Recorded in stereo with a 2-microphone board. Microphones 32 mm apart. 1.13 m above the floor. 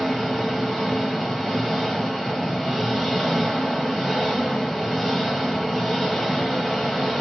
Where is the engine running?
15° left (ahead or behind), 1.4 m.